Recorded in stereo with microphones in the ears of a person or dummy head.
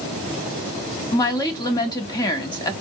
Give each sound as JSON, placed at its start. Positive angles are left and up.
{"t": 1.1, "sound": "a woman speaking", "side_deg": 20, "distance_m": 0.8}